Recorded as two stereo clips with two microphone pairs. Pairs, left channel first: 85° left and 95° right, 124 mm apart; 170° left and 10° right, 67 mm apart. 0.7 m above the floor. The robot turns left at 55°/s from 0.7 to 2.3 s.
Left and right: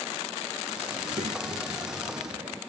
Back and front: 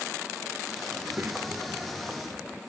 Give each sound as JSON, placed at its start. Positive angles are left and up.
{"t": 0.9, "sound": "a child speaking", "azimuth_deg": -55}